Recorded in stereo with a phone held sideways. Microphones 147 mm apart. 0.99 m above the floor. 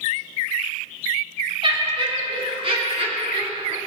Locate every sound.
1.6 s laughter: 35° right (ahead or behind), 2.5 m; by 3.8 s 45° right (ahead or behind), 4 m